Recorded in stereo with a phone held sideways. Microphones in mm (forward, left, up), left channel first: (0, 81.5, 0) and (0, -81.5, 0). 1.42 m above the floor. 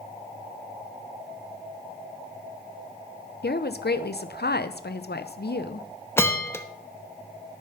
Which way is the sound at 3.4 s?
80° left.